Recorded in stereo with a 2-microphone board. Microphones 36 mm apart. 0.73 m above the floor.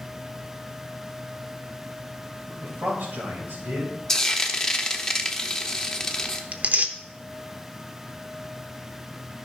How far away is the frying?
About 0.9 m.